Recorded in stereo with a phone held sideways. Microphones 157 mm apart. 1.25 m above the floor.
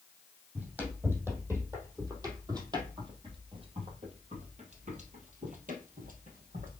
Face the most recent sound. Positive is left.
turn(degrees=-60)  # may be behind; listen again after turning